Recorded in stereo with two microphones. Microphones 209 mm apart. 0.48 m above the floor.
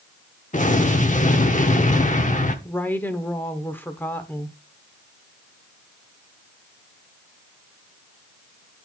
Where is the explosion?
35° left (ahead or behind), 0.9 m.